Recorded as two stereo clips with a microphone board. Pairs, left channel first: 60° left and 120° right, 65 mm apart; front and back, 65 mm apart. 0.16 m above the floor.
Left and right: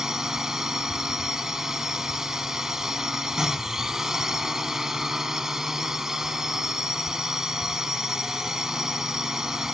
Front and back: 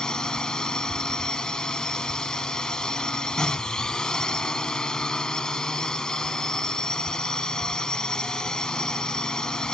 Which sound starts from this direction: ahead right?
A drone, at 0.0 s.